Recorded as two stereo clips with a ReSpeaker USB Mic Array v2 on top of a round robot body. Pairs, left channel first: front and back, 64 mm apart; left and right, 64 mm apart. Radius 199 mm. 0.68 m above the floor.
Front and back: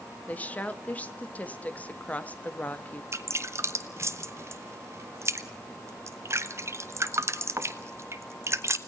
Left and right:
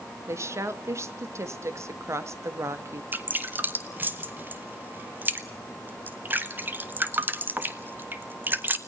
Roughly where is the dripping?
Behind right.